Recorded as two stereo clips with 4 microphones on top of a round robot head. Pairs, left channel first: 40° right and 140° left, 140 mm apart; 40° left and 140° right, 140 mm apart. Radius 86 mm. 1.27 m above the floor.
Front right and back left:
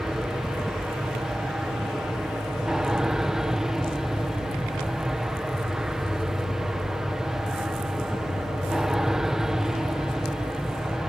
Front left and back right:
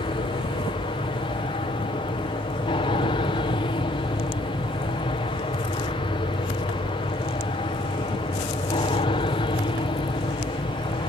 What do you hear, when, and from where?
0.0 s an aircraft: 55° left